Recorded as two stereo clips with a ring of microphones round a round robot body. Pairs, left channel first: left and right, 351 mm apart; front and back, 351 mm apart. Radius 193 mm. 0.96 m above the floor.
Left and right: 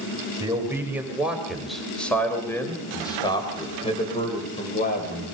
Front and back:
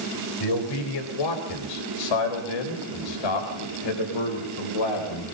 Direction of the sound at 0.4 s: 10° right.